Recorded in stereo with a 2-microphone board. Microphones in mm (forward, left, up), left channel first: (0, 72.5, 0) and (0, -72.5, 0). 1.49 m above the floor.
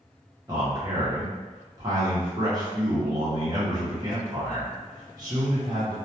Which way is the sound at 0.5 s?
30° right (ahead or behind).